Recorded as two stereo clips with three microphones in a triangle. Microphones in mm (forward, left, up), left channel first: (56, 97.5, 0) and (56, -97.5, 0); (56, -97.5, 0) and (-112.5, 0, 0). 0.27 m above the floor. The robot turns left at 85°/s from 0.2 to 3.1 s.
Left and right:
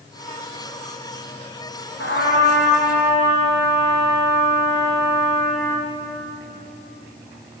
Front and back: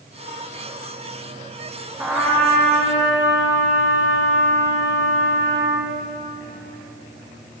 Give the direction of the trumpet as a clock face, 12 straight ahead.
10 o'clock.